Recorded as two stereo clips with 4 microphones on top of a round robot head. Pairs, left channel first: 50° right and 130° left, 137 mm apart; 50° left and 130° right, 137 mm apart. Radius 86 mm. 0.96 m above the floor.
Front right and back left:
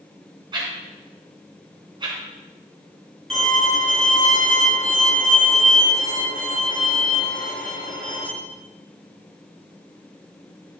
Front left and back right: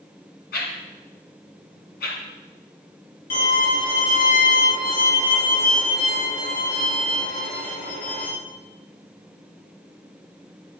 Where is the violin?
35° left, 4 m.